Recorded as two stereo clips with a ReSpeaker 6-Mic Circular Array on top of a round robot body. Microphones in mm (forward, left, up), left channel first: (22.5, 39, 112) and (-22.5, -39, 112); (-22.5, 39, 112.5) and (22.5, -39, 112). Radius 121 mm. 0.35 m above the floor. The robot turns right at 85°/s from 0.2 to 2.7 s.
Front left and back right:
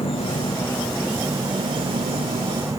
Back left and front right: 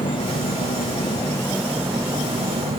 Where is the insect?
85° left; by 2.8 s 60° right.